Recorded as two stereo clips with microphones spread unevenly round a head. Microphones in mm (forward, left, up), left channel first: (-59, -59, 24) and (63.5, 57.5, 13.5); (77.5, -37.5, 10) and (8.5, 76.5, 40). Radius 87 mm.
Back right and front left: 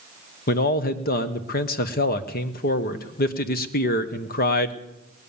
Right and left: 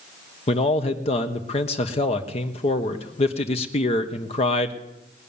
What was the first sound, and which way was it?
A man speaking, 100° right.